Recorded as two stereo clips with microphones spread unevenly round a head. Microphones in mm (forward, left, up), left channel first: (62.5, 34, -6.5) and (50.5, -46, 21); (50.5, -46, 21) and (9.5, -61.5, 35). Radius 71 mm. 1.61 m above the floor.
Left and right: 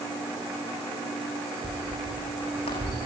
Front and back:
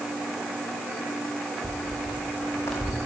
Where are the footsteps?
85° left, 6 m; by 3.0 s 75° left, 5.5 m.